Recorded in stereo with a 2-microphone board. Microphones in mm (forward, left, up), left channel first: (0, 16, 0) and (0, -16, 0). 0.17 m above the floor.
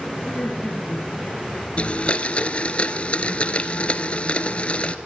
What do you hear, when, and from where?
0.2 s laughter: 40° left (ahead or behind), 4 m; by 1.7 s 55° left (ahead or behind), 4 m
1.8 s a blender: 40° left (ahead or behind), 1.0 m